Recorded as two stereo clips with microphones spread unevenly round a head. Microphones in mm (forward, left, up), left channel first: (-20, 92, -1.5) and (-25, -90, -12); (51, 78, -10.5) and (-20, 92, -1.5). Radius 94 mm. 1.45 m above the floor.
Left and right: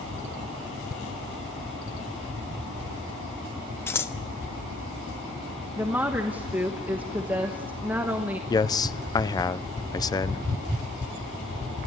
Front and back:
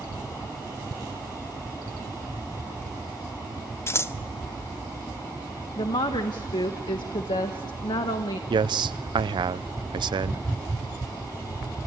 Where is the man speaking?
160° left, 0.6 m.